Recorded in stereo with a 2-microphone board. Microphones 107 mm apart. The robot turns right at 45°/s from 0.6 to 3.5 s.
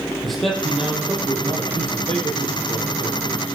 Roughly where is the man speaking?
Behind.